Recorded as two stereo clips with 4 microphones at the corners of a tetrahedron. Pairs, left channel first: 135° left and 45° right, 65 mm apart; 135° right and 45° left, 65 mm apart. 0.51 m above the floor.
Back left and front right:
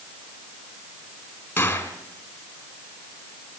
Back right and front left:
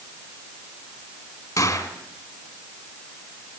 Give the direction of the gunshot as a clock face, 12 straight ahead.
5 o'clock.